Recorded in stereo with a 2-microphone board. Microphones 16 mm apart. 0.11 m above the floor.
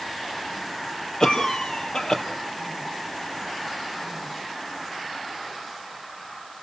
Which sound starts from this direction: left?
A cough, at 1.2 s.